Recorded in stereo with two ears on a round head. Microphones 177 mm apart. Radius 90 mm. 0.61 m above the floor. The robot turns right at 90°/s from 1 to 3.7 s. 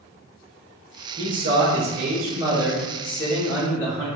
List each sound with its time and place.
1.2 s a man speaking: 145° right, 1.3 m; by 4.1 s 85° left, 1.3 m